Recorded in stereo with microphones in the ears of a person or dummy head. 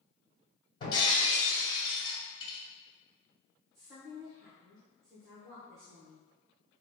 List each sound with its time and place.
0.8 s breaking glass: 25° left (ahead or behind), 1.7 m
3.7 s a woman speaking: 5° right (ahead or behind), 0.8 m